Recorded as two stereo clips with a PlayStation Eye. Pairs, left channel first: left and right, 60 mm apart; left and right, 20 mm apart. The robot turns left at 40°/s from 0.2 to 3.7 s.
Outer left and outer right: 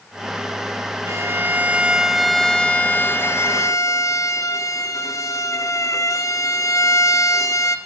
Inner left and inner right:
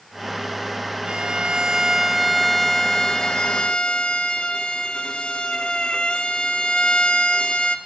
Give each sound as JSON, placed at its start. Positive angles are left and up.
{"t": 1.1, "sound": "a violin", "azimuth_deg": -130, "distance_m": 1.6}